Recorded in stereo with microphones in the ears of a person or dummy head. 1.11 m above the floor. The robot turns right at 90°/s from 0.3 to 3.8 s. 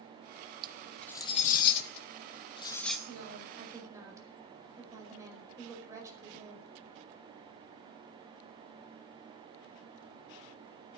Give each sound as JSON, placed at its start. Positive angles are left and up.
{"t": 0.6, "sound": "cutlery clinking", "side_deg": -30, "distance_m": 0.8}
{"t": 3.1, "sound": "a woman speaking", "azimuth_deg": -85, "distance_m": 5.0}